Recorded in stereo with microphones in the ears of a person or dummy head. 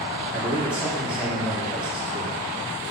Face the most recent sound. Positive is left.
turn(degrees=-10)  # may be behind; listen again after turning